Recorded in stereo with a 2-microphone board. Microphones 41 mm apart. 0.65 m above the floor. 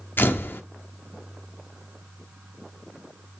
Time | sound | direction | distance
0.2 | a camera shutter | 55° left (ahead or behind) | 1.3 m